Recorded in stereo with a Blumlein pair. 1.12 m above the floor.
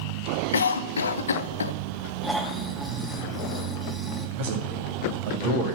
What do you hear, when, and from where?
0.5 s a cough: 70° left, 0.7 m
2.2 s snoring: straight ahead, 1.3 m
4.4 s a man speaking: 50° right, 2.5 m